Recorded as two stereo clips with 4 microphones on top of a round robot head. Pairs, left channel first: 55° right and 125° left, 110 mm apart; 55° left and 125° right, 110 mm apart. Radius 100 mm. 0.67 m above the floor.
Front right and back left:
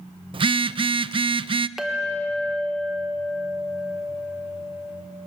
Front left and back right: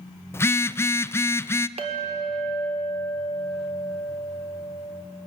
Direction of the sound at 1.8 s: 150° right.